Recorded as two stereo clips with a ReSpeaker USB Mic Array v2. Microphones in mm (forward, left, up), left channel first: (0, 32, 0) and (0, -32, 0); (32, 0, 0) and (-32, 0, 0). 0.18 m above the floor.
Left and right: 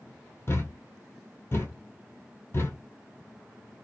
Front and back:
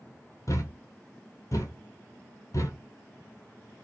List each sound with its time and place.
0.5 s a thud: 35° left, 0.8 m